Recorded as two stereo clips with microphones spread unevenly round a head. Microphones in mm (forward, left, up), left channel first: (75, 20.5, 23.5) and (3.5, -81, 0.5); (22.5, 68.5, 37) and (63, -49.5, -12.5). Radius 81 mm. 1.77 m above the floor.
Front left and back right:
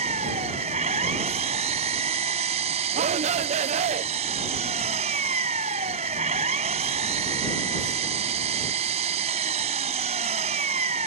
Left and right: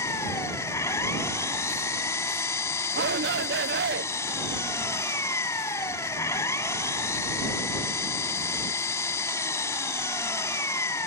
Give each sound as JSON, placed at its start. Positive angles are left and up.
{"t": 0.0, "sound": "an engine running", "azimuth_deg": 175}
{"t": 2.9, "sound": "a shout", "azimuth_deg": -95}